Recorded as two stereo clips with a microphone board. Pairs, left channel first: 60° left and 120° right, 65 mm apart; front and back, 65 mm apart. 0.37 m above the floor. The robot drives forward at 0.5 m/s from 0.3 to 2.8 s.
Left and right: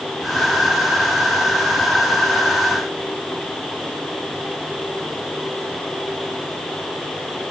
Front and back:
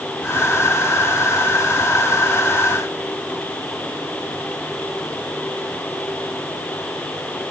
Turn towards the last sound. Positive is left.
No sound to turn to.